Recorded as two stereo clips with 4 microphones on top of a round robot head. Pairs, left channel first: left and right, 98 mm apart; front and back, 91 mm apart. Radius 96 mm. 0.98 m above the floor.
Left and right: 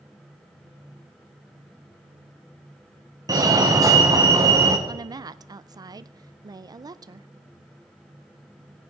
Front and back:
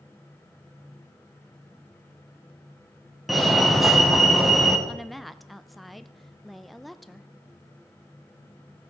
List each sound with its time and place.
3.3 s a fire alarm: 95° right, 1.7 m
4.9 s a woman speaking: 90° right, 0.6 m